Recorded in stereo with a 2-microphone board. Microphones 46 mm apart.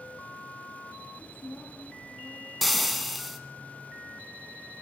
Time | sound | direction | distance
1.1 | a woman speaking | 60° left (ahead or behind) | 6.5 m
2.6 | frying | centre (ahead or behind) | 2.0 m